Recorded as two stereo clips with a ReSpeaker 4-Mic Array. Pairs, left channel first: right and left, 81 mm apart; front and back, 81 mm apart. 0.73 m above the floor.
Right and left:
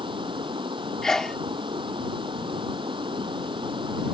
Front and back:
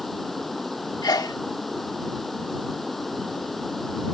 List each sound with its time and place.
0.0 s running water: 90° left
1.0 s a sneeze: 5° right